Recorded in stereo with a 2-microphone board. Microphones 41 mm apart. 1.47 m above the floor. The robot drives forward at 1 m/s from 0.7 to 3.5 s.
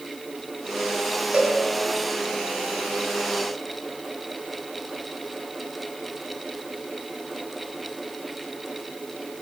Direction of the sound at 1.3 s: 25° right (ahead or behind).